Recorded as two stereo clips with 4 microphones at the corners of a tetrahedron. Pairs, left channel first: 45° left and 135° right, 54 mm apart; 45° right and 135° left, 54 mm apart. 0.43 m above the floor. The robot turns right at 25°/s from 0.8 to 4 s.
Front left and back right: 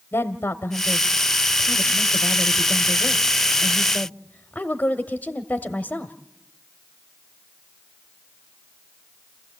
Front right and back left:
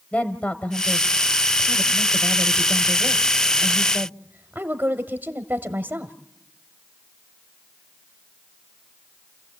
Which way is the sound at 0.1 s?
20° left.